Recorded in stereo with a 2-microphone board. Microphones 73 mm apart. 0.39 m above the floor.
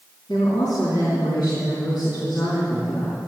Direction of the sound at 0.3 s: 70° left (ahead or behind).